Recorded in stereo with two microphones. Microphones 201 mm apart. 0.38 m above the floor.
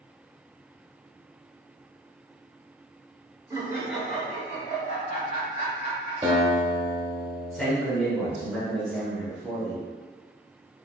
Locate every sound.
3.5 s laughter: 20° right (ahead or behind), 1.0 m; by 6.1 s 50° left (ahead or behind), 1.4 m
6.2 s a guitar: 30° right (ahead or behind), 0.9 m
7.5 s a man speaking: centre (ahead or behind), 1.4 m